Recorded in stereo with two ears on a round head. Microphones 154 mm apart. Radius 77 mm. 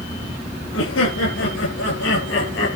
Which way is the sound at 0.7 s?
85° left.